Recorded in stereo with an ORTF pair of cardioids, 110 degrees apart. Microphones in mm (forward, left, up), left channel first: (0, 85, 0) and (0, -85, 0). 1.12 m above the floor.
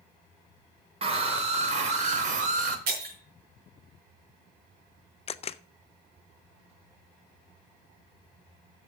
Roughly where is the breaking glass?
Ahead right.